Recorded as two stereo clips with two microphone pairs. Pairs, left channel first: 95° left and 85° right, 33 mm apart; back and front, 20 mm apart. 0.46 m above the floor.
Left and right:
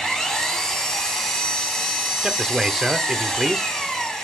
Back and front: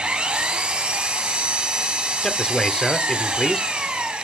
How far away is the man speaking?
About 0.9 m.